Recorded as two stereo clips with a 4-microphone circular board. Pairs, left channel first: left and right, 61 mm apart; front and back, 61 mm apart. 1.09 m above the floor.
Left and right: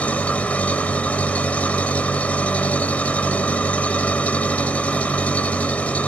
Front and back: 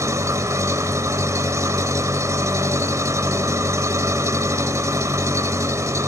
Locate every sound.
0.0 s an engine running: 155° left, 1.5 m